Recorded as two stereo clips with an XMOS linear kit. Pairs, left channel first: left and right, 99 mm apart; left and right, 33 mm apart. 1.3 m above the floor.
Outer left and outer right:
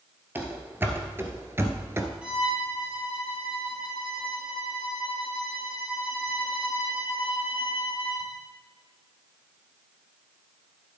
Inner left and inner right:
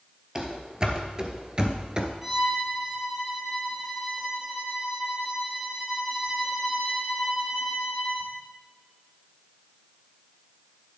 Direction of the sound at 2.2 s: 10° right (ahead or behind).